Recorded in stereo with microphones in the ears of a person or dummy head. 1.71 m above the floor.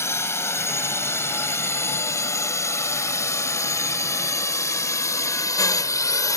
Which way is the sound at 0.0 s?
15° left (ahead or behind).